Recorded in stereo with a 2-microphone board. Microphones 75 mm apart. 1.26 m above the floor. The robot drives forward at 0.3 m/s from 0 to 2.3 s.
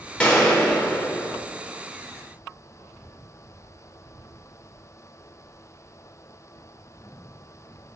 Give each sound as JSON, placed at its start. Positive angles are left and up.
{"t": 0.2, "sound": "a gunshot", "side_deg": 15, "distance_m": 1.5}